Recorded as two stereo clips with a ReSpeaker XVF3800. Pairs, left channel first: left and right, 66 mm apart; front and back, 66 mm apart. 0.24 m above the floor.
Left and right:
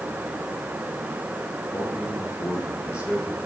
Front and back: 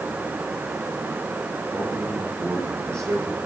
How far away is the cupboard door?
No cupboard door in this recording.